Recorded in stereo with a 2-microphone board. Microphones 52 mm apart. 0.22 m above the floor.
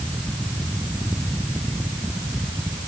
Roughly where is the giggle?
No giggle in this recording.